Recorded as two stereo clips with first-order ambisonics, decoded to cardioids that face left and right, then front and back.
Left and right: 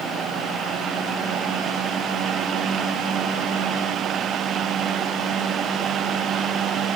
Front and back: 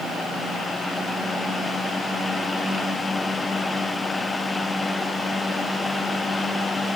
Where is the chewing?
No chewing in this recording.